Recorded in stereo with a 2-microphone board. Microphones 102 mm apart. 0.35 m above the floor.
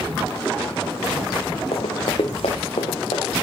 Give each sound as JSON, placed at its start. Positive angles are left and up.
{"t": 1.7, "sound": "running footsteps", "side_deg": 75, "distance_m": 1.5}